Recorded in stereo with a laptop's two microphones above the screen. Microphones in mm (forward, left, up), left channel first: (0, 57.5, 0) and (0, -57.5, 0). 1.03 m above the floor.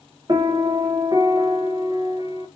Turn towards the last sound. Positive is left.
turn(degrees=-35)  # may be behind; listen again after turning